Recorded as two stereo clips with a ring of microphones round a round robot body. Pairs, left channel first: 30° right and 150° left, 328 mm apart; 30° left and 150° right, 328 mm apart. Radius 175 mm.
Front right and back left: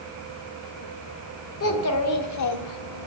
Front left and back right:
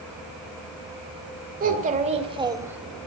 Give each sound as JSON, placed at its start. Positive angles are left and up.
{"t": 1.6, "sound": "a child speaking", "azimuth_deg": -85, "distance_m": 2.0}